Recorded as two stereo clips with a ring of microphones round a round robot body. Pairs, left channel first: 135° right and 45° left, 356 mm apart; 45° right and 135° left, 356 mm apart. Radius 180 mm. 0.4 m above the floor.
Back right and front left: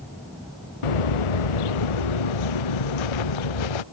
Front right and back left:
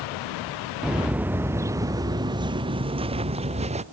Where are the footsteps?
135° right; by 3.8 s 150° right.